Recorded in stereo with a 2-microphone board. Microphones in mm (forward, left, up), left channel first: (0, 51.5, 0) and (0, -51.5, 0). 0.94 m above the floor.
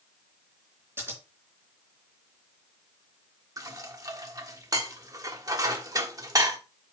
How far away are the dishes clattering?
About 1.2 m.